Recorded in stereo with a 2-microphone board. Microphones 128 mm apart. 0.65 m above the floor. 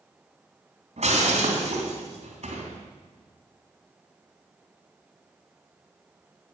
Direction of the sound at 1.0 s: 60° right (ahead or behind).